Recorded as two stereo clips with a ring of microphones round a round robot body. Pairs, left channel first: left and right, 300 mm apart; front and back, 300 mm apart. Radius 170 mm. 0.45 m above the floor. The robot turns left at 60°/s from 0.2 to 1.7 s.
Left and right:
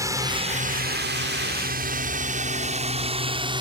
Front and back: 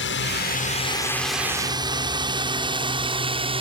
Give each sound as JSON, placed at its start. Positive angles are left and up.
{"t": 0.0, "sound": "a drone", "azimuth_deg": -15}